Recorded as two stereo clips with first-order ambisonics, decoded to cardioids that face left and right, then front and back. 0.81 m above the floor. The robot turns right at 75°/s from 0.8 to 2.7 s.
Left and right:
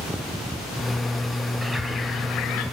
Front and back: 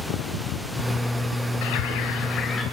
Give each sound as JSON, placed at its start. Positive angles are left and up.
{"t": 1.6, "sound": "a bird", "azimuth_deg": -5, "distance_m": 1.6}